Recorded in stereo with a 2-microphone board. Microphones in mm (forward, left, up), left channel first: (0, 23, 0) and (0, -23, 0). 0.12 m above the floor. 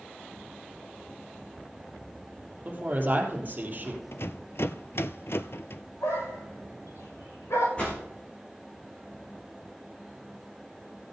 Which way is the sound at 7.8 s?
25° left (ahead or behind).